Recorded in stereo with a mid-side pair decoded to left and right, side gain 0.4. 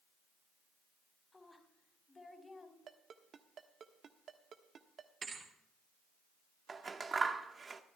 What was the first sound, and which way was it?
A woman speaking, 25° left.